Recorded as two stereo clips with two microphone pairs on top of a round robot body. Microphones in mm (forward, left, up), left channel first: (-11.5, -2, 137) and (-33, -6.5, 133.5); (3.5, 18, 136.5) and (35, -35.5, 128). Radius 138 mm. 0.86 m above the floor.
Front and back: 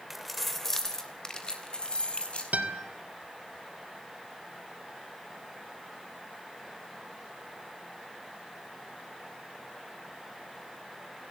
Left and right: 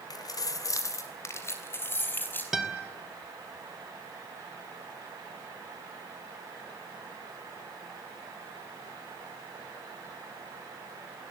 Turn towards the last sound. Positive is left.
turn(degrees=-145)